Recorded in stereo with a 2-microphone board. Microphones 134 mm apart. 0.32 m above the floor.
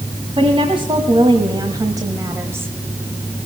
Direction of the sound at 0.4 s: 45° right (ahead or behind).